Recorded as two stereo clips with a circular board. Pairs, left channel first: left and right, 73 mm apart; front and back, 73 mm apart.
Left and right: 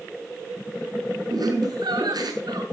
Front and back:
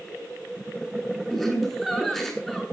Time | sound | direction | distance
1.3 | laughter | 85° right | 7.5 m